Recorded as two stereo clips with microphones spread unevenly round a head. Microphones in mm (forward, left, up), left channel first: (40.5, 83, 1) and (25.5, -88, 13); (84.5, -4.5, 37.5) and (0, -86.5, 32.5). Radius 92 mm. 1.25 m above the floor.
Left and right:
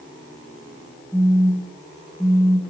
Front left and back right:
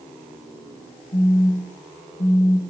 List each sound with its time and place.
1.1 s a phone buzzing: straight ahead, 0.5 m